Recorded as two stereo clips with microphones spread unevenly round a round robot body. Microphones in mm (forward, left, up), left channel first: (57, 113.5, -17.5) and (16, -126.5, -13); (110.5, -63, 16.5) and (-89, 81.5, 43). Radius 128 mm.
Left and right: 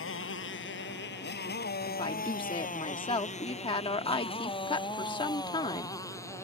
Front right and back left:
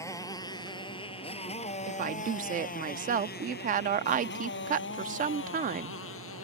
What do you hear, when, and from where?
0.0 s a motorcycle: 45° left; by 6.4 s straight ahead
1.9 s a woman speaking: 120° left